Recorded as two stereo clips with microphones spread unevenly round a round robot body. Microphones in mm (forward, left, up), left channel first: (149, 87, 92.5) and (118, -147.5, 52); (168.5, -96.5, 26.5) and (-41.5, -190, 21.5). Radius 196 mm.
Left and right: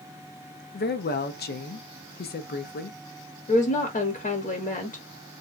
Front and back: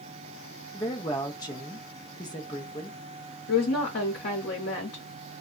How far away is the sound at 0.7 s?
About 0.6 m.